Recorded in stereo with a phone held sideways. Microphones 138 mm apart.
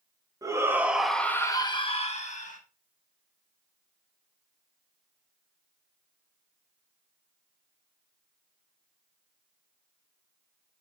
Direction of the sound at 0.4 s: 25° right (ahead or behind).